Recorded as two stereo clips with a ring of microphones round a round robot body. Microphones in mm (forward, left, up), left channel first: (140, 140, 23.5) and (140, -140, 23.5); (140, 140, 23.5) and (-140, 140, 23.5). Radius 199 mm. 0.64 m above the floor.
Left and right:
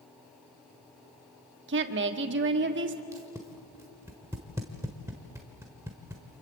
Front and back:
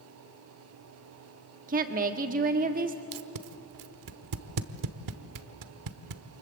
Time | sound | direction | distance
1.7 | a woman speaking | 125° right | 1.3 m
3.1 | tape being pulled | 175° right | 1.1 m